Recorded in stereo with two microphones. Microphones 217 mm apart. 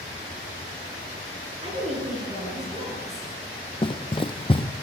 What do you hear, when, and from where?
1.6 s a woman speaking: 30° right (ahead or behind), 8.5 m
3.8 s running footsteps: 25° left (ahead or behind), 1.0 m